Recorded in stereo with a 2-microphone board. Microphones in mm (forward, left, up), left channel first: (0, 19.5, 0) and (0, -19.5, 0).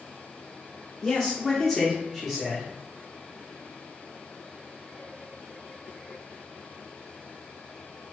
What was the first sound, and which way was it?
A man speaking, 20° left (ahead or behind).